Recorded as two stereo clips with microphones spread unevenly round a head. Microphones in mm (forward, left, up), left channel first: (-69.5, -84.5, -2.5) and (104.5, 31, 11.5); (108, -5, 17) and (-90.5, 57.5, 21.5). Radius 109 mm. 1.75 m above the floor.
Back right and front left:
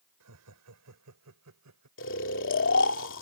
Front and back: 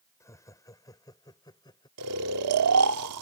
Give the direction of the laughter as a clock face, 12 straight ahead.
10 o'clock.